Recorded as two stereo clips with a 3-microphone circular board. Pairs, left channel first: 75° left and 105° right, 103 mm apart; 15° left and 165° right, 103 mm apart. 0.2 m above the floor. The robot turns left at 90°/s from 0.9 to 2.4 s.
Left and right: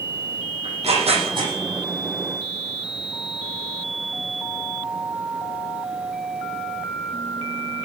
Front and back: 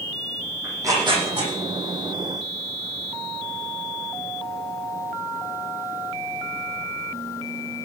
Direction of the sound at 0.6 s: 105° right.